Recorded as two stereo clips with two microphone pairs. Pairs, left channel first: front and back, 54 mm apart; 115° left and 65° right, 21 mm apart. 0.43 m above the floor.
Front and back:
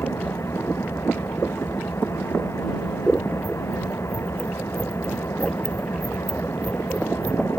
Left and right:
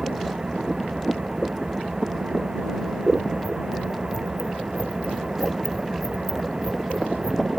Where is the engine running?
25° right.